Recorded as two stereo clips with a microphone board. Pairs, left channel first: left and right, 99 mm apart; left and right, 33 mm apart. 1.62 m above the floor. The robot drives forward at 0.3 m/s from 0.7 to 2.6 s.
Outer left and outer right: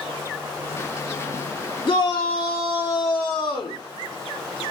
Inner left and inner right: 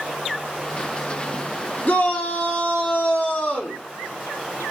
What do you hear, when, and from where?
1.9 s a shout: 45° left (ahead or behind), 0.8 m; by 3.8 s 35° left (ahead or behind), 0.9 m